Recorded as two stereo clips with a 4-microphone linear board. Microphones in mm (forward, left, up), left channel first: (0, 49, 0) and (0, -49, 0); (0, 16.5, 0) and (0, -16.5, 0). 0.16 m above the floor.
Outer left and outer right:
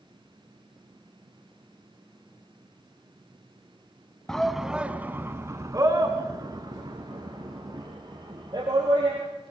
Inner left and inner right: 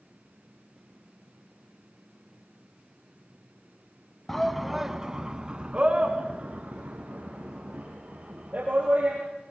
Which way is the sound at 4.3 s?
5° left (ahead or behind).